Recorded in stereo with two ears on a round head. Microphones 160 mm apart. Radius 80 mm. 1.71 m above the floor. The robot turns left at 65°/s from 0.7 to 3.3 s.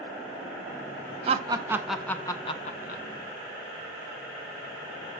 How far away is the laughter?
About 0.9 m.